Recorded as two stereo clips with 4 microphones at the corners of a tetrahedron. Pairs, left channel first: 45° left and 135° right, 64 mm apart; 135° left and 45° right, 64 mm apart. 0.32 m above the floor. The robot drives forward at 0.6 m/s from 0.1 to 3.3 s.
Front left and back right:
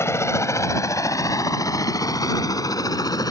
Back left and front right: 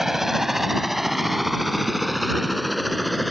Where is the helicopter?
40° left; by 3.3 s 45° left.